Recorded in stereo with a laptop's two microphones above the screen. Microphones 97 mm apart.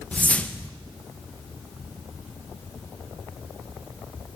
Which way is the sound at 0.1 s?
10° left (ahead or behind).